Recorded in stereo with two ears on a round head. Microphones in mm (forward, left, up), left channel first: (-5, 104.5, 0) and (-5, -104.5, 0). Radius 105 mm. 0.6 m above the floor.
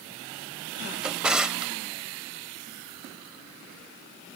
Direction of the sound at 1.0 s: 5° right (ahead or behind).